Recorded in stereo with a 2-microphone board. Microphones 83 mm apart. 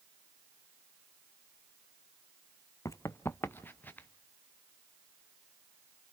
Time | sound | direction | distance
2.9 | running footsteps | 40° left (ahead or behind) | 0.7 m